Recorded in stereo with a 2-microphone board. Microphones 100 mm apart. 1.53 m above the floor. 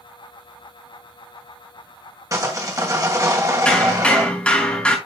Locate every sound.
2.3 s sawing: 35° right (ahead or behind), 2.5 m
3.6 s hammering: 10° left (ahead or behind), 3.5 m